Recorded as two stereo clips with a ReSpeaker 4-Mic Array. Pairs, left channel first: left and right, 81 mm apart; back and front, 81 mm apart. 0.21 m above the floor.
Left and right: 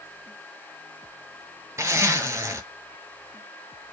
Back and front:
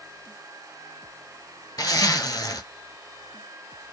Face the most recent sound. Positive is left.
turn(degrees=-145)